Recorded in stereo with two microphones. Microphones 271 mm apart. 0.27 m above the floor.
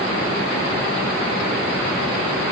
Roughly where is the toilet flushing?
No toilet flushing in this recording.